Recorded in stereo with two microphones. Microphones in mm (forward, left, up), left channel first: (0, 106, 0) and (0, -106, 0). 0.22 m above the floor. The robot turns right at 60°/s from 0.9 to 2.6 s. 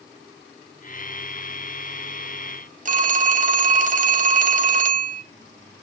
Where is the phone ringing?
35° right (ahead or behind), 0.7 m.